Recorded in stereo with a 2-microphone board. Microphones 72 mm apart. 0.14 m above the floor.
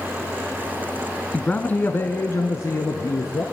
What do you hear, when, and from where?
1.3 s a man speaking: 15° left (ahead or behind), 1.1 m; by 3.4 s 55° left (ahead or behind), 1.9 m